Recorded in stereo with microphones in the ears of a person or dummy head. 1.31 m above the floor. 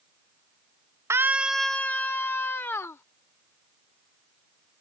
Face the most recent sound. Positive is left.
turn(degrees=15)  # may be behind; listen again after turning